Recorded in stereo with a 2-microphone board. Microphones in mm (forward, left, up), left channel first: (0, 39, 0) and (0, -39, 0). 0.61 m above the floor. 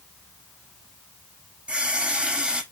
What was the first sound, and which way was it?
A running tap, 10° right (ahead or behind).